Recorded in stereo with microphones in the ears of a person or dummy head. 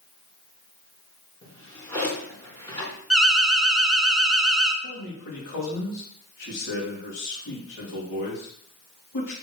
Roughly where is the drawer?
Centre.